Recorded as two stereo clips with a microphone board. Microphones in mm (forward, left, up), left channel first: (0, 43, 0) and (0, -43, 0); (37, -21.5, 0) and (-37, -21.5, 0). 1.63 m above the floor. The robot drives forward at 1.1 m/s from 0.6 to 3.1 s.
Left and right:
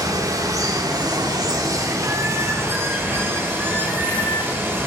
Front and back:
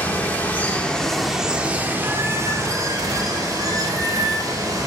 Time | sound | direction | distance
0.0 | running water | 60° right | 1.7 m